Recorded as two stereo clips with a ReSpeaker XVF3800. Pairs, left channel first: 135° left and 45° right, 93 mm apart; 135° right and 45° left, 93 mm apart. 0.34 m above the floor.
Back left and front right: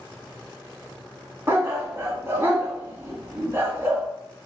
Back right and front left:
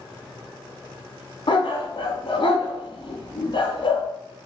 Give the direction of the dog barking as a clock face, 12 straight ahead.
4 o'clock.